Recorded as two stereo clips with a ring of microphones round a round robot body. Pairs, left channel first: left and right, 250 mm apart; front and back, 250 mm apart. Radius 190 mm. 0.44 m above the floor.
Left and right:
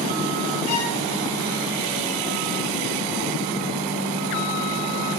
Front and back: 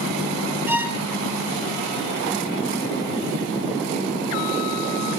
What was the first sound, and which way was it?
A violin, 95° left.